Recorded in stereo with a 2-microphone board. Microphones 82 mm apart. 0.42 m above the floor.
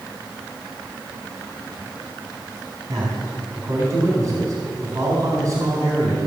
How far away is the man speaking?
About 4 m.